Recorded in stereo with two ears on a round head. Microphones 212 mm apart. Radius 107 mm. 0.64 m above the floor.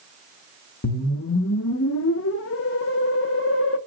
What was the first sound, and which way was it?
A whoosh, 55° left (ahead or behind).